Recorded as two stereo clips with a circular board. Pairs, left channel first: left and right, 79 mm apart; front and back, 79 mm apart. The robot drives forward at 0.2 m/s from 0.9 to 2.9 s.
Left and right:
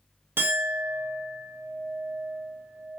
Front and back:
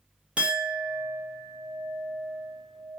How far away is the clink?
About 0.6 m.